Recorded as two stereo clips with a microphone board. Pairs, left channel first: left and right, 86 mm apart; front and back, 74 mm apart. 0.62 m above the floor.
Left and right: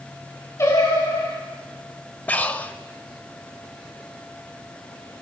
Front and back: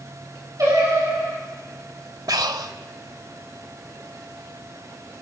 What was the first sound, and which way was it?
Singing, 145° left.